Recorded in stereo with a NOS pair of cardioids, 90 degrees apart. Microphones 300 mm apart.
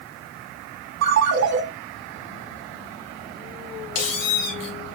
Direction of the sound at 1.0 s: 65° right.